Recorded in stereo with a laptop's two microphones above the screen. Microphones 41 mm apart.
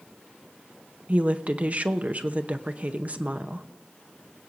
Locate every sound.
1.1 s a woman speaking: 40° right (ahead or behind), 0.8 m